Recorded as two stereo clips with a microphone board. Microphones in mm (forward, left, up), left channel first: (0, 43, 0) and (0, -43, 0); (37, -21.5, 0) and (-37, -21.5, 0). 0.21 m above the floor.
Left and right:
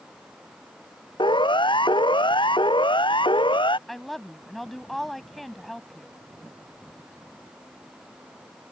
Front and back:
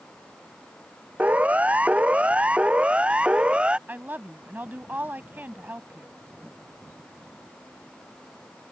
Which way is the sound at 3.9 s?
175° left.